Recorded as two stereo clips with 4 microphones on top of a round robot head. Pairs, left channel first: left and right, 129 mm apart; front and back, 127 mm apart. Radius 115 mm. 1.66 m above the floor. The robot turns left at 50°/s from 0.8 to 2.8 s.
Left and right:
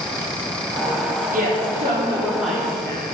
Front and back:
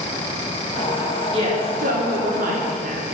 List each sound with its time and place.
1.3 s a woman speaking: 120° right, 4 m; by 3.0 s 165° left, 4 m